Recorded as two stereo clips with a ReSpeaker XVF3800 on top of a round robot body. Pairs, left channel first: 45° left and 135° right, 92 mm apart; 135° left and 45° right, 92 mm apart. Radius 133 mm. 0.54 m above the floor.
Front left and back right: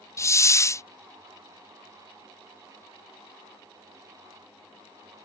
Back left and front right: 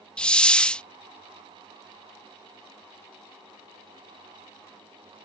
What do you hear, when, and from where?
0.2 s a hiss: 65° left